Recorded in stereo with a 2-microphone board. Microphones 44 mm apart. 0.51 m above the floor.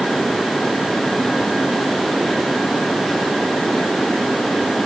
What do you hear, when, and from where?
Only background noise.